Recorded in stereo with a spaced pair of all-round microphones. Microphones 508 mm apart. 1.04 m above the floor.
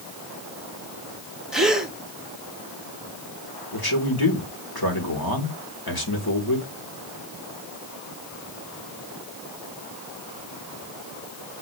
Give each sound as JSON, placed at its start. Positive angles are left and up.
{"t": 1.5, "sound": "a gasp", "side_deg": 0, "distance_m": 1.8}
{"t": 3.7, "sound": "a man speaking", "side_deg": 45, "distance_m": 3.5}